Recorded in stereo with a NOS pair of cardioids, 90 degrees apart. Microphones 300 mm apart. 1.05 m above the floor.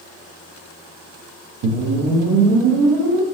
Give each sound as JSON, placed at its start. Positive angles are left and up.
{"t": 1.6, "sound": "a whoosh", "azimuth_deg": -70, "distance_m": 0.9}